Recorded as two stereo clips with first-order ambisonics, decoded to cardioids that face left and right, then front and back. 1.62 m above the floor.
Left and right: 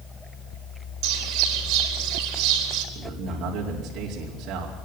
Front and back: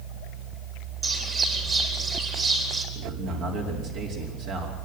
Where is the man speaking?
140° right, 5 m.